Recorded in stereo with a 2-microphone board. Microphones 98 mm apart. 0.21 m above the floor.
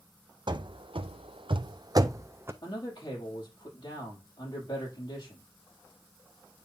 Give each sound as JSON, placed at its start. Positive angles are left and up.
{"t": 0.5, "sound": "running footsteps", "side_deg": -55, "distance_m": 0.8}
{"t": 2.6, "sound": "a man speaking", "side_deg": 50, "distance_m": 6.5}